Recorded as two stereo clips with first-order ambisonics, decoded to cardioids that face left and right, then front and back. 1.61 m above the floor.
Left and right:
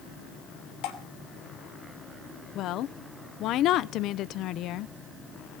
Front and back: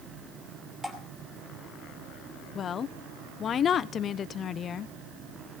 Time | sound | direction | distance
0.8 | dripping | 95° left | 2.5 m
2.5 | a woman speaking | 55° left | 0.6 m